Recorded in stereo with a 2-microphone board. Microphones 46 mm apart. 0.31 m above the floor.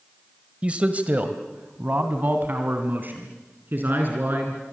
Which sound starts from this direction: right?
A man speaking, at 0.6 s.